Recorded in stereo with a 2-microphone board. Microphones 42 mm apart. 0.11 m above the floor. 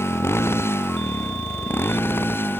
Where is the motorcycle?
80° left; by 2.6 s 60° left (ahead or behind).